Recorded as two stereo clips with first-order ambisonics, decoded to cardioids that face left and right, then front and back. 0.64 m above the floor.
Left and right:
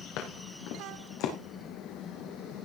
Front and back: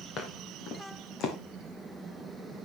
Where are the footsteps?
60° left, 5 m.